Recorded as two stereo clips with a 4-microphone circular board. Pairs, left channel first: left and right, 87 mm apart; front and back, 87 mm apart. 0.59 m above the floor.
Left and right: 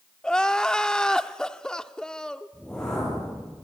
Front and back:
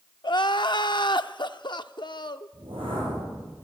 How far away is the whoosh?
About 8.5 m.